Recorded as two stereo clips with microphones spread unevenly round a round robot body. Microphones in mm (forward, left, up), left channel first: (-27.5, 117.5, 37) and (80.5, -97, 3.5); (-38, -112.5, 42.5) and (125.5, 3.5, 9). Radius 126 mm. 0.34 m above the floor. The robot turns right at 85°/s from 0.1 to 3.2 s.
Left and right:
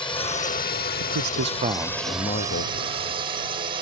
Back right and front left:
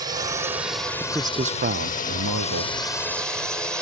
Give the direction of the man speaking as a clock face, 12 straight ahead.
2 o'clock.